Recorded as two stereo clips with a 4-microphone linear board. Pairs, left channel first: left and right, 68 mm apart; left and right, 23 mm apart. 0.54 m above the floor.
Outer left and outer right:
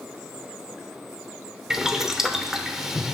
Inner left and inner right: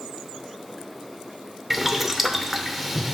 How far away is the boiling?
About 0.7 m.